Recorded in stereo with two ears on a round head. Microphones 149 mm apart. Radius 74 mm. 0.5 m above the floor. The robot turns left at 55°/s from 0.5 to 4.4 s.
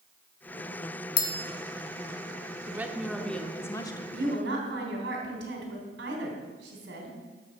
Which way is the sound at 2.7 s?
155° right.